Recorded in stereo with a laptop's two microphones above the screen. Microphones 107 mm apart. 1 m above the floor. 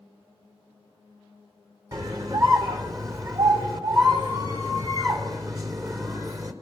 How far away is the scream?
About 3 m.